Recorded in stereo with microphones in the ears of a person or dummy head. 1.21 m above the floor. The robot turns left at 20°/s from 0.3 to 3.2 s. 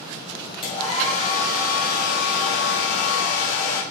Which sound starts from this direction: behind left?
A hair dryer, at 0.6 s.